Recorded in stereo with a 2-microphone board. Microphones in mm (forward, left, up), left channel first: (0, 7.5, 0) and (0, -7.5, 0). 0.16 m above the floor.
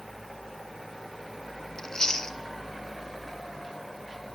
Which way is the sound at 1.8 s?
40° left (ahead or behind).